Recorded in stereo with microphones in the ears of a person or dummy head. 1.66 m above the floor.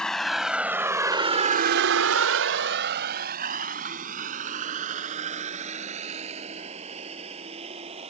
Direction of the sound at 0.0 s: Centre (ahead or behind).